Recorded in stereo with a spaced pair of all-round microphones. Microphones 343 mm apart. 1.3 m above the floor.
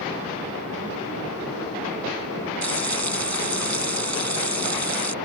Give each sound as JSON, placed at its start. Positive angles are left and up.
{"t": 2.6, "sound": "frying", "side_deg": -50}